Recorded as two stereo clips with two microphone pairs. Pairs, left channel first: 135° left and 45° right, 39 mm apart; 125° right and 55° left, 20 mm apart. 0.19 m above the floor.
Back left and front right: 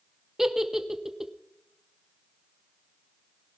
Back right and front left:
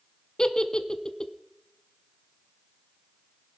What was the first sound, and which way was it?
A giggle, 120° right.